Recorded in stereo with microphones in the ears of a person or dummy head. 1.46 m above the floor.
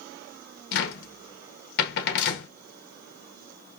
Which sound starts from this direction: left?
A cupboard door, at 0.7 s.